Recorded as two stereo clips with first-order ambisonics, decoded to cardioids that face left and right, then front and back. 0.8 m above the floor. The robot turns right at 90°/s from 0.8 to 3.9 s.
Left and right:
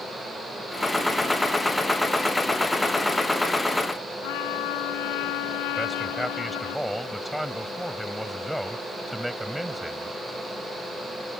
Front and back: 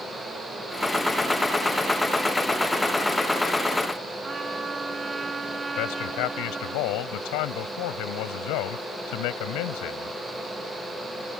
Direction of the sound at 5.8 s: 5° right.